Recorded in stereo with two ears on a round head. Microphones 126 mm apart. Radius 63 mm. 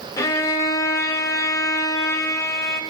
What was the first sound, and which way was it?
A violin, 25° left (ahead or behind).